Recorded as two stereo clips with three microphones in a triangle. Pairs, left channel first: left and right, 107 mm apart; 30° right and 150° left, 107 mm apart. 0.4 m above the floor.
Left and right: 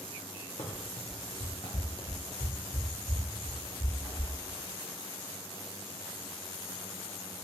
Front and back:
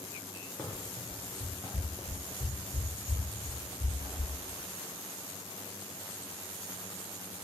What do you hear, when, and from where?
0.6 s running footsteps: 55° left, 0.9 m; by 4.3 s 155° left, 1.7 m